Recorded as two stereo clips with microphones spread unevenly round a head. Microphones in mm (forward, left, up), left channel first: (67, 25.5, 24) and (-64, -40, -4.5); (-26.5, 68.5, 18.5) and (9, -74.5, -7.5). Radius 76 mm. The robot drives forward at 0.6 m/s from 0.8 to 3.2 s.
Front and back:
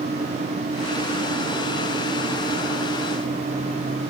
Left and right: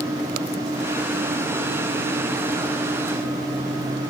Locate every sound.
Only background noise.